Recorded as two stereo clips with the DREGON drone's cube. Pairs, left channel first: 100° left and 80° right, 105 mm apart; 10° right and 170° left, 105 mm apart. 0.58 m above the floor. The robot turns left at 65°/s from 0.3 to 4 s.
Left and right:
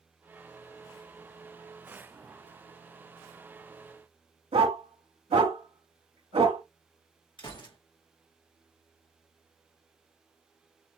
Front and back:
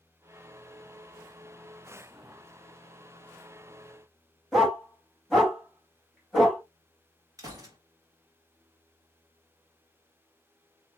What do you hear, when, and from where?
4.5 s a dog barking: 100° right, 1.6 m
7.4 s a gunshot: 125° left, 1.4 m